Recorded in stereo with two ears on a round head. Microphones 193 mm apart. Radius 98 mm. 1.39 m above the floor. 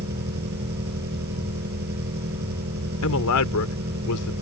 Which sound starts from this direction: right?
An engine running, at 0.0 s.